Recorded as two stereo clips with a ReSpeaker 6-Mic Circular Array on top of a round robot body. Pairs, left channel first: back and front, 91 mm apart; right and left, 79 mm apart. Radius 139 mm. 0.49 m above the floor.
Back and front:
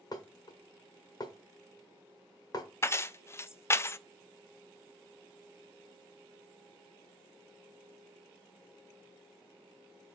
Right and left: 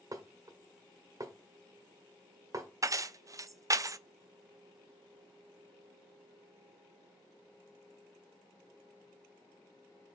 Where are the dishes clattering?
135° left, 1.6 m.